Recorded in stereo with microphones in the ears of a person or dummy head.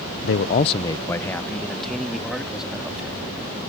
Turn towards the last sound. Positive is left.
turn(degrees=-10)  # may be behind; listen again after turning